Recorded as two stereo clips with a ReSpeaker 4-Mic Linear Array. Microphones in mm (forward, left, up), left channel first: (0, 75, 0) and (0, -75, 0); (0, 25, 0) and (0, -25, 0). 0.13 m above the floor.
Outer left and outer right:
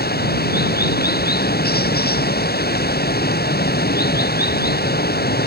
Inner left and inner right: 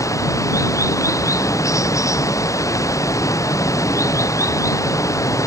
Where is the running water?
85° left.